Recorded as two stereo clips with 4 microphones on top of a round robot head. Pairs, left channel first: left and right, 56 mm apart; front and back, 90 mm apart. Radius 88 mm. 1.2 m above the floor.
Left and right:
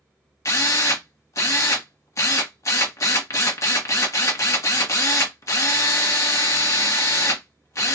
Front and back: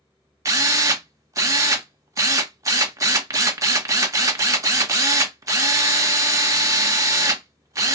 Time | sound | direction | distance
0.5 | a drill | 125° left | 1.1 m